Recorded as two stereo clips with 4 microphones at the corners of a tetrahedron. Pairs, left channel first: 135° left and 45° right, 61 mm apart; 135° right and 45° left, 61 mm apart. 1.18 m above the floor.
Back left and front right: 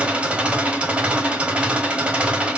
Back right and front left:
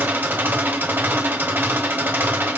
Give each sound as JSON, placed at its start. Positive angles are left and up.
{"t": 0.0, "sound": "an engine running", "azimuth_deg": 15, "distance_m": 1.3}